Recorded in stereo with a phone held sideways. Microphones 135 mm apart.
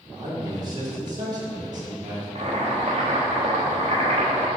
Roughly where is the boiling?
Right.